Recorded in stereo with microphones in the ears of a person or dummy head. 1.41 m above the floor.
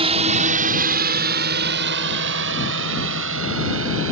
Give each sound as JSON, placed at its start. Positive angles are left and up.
{"t": 0.0, "sound": "a drone", "side_deg": -30}